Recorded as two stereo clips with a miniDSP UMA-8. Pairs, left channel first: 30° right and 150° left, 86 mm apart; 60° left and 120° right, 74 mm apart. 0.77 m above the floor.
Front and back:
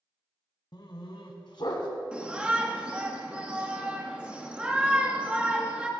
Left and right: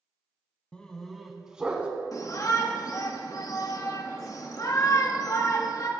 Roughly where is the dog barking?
Ahead.